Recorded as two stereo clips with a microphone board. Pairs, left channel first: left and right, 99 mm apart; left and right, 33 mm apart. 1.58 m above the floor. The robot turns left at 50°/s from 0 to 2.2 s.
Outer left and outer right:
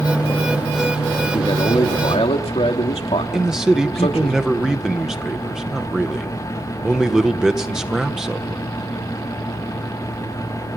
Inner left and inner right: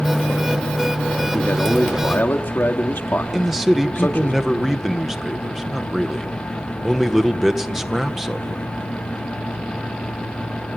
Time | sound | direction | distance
1.3 | a man speaking | 135° left | 2.5 m
3.3 | a man speaking | 5° right (ahead or behind) | 1.7 m